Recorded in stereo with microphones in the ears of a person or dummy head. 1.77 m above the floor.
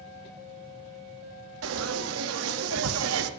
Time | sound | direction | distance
1.6 | frying | 80° right | 1.0 m